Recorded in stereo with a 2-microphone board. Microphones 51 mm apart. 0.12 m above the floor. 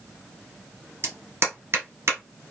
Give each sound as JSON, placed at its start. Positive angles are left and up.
{"t": 1.0, "sound": "a clap", "side_deg": -55, "distance_m": 1.6}